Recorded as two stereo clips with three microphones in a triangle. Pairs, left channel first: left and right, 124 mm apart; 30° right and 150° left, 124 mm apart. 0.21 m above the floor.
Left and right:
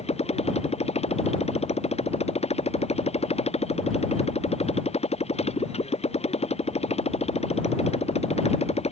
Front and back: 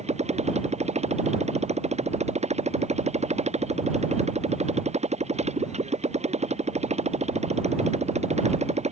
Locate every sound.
0.0 s a motorcycle: 125° left